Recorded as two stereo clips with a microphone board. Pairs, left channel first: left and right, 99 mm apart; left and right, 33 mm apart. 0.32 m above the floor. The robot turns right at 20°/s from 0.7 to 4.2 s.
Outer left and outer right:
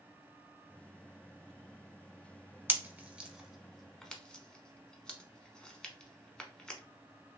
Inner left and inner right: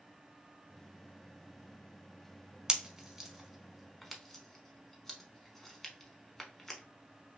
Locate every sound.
2.7 s a pop: 20° right (ahead or behind), 0.6 m; by 6.8 s 10° left (ahead or behind), 0.6 m